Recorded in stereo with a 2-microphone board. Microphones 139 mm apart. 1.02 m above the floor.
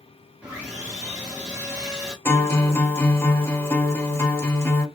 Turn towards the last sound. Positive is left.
turn(degrees=15)  # may be behind; listen again after turning